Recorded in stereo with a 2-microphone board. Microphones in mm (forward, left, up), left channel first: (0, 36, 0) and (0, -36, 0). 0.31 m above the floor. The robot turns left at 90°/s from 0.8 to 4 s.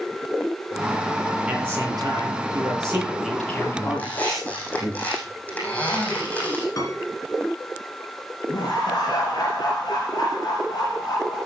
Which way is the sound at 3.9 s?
15° left (ahead or behind).